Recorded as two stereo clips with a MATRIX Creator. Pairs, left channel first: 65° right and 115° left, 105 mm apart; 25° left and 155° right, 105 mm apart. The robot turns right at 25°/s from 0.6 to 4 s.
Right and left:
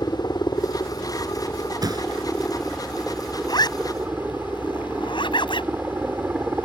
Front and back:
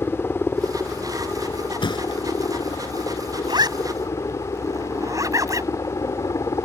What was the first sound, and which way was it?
A helicopter, 35° right.